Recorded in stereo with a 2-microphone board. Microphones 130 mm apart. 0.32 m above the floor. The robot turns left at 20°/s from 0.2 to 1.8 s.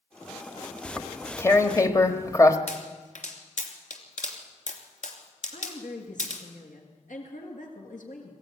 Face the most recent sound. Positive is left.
turn(degrees=75)  # may be behind; listen again after turning